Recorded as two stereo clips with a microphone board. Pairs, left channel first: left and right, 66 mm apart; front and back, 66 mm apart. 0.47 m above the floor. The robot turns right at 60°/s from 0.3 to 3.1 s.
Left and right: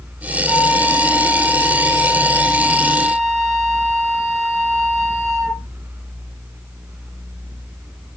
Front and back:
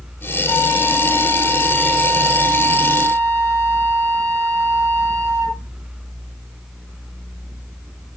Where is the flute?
15° left, 4.5 m; by 5.7 s 175° left, 4.5 m.